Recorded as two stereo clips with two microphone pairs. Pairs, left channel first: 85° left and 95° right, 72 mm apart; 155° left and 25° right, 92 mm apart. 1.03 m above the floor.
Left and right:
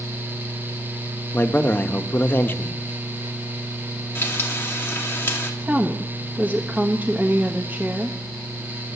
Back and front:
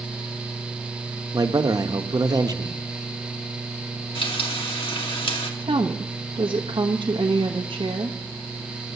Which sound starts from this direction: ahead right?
A woman speaking, at 5.6 s.